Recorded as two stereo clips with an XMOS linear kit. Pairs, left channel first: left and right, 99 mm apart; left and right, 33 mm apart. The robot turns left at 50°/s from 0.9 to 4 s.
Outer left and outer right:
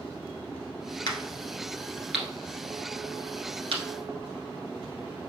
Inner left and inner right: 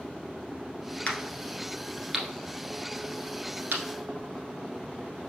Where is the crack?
50° left (ahead or behind), 1.4 m; by 3.8 s 85° right, 1.4 m.